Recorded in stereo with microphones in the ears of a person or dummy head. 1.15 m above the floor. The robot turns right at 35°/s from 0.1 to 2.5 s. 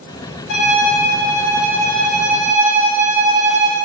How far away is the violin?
About 0.6 m.